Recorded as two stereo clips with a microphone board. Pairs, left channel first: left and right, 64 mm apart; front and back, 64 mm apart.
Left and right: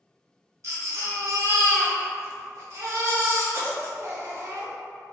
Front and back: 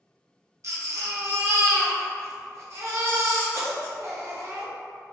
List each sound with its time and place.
0.6 s a baby crying: 140° right, 0.7 m